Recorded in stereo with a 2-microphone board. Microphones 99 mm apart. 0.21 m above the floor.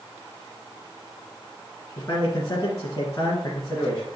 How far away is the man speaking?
About 2 m.